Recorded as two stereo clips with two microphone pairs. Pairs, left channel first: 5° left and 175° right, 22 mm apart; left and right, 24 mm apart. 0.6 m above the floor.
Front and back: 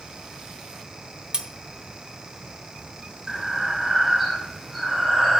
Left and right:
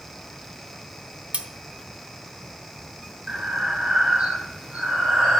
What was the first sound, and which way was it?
Cutlery clinking, 125° right.